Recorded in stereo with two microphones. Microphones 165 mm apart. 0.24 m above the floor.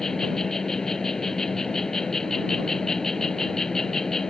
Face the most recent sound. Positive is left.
turn(degrees=5)  # may be behind; listen again after turning